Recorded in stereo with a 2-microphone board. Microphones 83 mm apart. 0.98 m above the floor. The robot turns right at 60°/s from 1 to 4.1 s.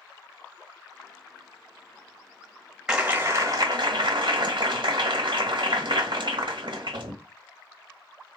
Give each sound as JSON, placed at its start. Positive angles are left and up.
{"t": 2.9, "sound": "a clap", "azimuth_deg": -170, "distance_m": 1.4}